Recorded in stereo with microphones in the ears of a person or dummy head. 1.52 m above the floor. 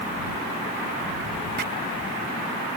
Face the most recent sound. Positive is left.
turn(degrees=-55)  # may be behind; listen again after turning